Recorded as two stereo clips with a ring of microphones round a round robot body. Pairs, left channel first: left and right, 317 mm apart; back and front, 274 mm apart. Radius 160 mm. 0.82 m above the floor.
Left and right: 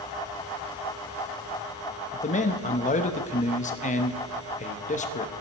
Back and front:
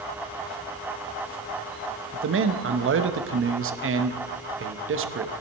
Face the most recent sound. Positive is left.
turn(degrees=30)